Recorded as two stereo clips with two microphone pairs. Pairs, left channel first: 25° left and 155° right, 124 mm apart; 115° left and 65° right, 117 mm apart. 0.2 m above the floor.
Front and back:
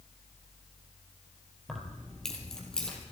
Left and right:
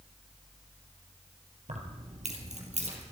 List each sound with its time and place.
1.7 s keys jangling: 65° right, 3 m; by 3.0 s 60° right, 4.5 m